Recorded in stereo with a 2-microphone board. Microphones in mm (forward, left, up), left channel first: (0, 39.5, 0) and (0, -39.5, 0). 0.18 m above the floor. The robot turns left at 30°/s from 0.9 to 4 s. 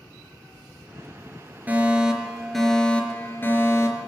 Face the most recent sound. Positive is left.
turn(degrees=135)